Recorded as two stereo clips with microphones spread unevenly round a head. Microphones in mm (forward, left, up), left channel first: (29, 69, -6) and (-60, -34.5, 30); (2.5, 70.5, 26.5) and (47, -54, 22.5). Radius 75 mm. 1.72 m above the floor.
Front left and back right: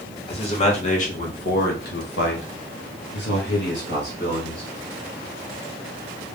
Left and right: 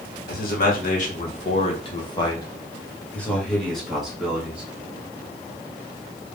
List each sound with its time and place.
0.3 s a man speaking: 105° left, 1.6 m; by 4.6 s 10° left, 2.5 m